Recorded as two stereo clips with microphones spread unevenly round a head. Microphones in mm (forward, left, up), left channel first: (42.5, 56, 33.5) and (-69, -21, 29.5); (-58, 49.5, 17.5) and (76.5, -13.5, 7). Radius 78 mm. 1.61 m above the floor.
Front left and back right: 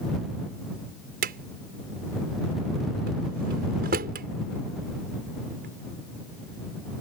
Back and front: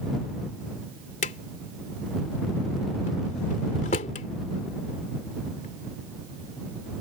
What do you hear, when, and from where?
1.2 s a drawer: 160° right